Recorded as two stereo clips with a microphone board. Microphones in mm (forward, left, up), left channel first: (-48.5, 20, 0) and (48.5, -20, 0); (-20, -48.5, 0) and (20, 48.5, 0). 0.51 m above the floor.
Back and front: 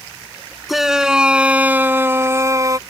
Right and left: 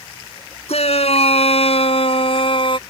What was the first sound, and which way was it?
A shout, 110° right.